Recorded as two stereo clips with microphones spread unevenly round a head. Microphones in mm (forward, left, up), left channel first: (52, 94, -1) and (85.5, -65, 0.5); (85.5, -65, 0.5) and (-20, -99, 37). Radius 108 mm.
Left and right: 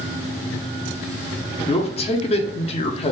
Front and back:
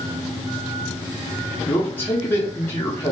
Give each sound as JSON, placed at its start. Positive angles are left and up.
{"t": 1.7, "sound": "a man speaking", "azimuth_deg": 60, "distance_m": 0.6}